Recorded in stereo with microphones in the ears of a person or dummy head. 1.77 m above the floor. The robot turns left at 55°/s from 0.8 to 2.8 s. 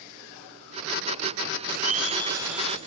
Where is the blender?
130° right, 2.5 m; by 2.8 s 170° left, 2.5 m.